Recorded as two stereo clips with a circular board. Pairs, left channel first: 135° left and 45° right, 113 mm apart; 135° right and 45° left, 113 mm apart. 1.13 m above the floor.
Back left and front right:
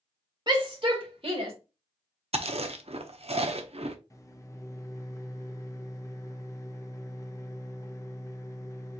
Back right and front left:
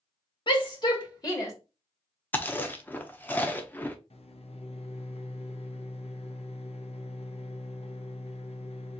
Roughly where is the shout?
Right.